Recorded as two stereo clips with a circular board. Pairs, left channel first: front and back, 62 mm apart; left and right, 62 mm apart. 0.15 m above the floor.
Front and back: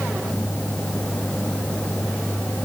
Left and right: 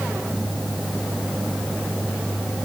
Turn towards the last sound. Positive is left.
No sound to turn to.